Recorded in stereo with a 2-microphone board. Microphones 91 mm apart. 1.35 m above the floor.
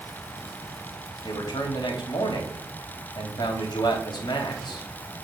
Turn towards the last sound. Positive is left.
turn(degrees=50)  # may be behind; listen again after turning